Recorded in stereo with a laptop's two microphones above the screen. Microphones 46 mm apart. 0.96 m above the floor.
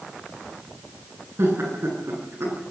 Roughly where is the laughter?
Right.